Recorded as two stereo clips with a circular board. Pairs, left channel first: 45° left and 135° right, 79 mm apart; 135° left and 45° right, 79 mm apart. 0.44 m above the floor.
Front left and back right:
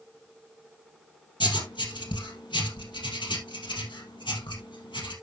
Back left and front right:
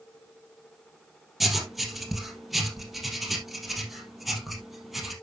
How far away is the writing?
About 3 m.